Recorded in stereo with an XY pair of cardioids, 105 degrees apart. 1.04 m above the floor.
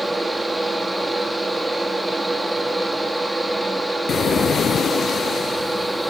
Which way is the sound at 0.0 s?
10° right.